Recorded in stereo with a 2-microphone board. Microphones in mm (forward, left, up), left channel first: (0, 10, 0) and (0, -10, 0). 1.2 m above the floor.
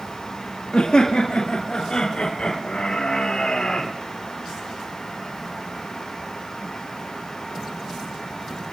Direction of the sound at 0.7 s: 50° left (ahead or behind).